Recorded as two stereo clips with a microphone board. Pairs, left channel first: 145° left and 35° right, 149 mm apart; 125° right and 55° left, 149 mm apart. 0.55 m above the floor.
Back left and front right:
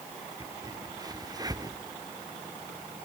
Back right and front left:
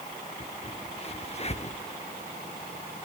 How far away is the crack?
About 0.6 m.